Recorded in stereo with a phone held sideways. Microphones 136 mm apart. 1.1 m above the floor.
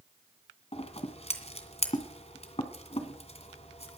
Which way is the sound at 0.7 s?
50° left (ahead or behind).